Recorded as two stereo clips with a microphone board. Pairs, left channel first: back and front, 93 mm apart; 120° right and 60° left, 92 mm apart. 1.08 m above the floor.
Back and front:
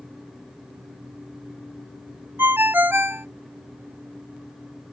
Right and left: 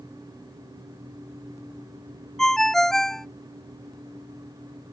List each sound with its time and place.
2.4 s a ringtone: 40° right